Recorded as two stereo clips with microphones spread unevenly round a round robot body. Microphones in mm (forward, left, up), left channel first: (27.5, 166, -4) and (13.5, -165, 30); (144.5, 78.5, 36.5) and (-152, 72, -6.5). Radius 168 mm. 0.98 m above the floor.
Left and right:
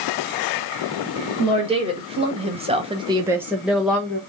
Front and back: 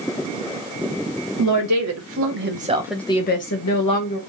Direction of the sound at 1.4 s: 170° right.